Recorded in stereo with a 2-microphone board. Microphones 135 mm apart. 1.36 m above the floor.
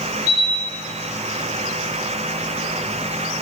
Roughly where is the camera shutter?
Right.